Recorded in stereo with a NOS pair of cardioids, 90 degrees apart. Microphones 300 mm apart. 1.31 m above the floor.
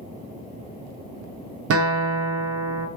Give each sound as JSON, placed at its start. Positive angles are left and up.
{"t": 1.7, "sound": "a guitar", "azimuth_deg": -50, "distance_m": 0.5}